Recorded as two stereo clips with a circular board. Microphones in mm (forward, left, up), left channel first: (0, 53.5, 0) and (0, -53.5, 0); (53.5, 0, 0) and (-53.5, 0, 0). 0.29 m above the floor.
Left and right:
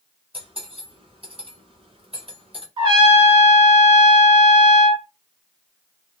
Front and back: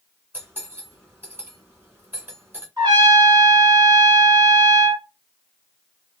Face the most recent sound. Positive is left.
turn(degrees=-130)